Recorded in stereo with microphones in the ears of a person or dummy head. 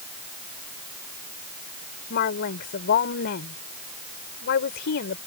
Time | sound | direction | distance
2.1 | a woman speaking | 60° left (ahead or behind) | ?